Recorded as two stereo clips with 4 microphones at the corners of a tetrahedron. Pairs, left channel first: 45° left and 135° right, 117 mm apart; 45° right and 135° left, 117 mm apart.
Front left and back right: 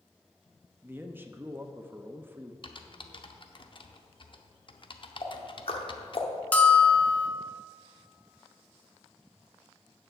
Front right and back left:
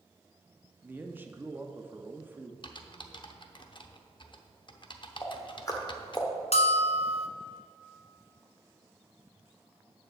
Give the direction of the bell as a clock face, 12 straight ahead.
1 o'clock.